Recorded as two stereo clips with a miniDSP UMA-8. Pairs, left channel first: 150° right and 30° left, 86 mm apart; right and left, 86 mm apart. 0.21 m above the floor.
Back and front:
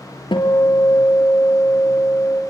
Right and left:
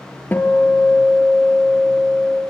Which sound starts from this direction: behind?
A guitar, at 0.3 s.